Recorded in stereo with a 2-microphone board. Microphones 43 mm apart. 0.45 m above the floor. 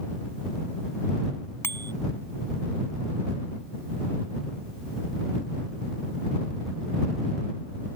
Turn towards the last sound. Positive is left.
turn(degrees=75)  # may be behind; listen again after turning